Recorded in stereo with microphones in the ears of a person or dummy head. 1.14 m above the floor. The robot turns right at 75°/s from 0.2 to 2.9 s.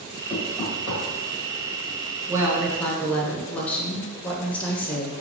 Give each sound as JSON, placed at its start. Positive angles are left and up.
{"t": 0.3, "sound": "knocking", "side_deg": 0, "distance_m": 1.1}
{"t": 2.3, "sound": "a woman speaking", "azimuth_deg": -30, "distance_m": 0.6}